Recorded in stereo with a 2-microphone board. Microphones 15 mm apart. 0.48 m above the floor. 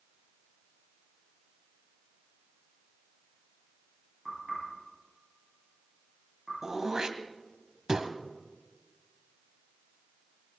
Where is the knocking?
10° right (ahead or behind), 9 m.